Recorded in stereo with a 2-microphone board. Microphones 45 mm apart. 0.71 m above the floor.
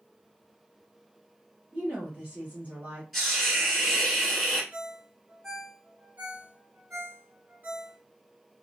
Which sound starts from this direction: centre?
A hiss, at 3.1 s.